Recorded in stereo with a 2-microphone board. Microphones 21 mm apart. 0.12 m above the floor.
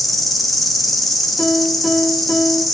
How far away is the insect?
About 0.7 m.